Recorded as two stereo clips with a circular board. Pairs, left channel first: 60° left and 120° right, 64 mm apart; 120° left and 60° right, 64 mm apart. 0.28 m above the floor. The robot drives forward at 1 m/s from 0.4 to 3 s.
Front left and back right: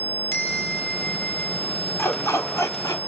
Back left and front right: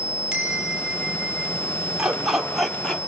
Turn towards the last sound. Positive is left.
turn(degrees=40)